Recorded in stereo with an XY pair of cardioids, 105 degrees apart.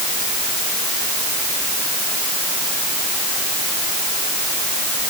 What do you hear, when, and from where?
Only background noise.